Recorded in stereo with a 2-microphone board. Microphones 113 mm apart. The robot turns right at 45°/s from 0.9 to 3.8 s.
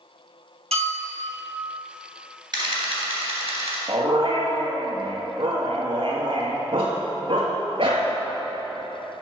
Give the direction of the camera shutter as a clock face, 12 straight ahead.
4 o'clock.